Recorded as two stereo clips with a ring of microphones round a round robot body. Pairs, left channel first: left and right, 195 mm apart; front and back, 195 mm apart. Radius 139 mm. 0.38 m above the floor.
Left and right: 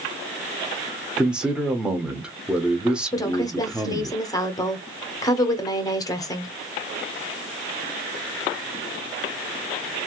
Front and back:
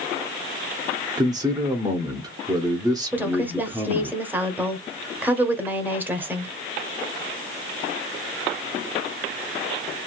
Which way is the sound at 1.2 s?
165° right.